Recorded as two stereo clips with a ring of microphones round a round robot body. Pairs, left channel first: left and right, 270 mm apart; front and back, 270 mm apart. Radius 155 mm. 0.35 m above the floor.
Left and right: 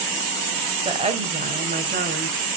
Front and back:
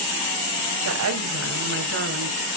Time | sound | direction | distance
0.8 | a woman speaking | 160° right | 2 m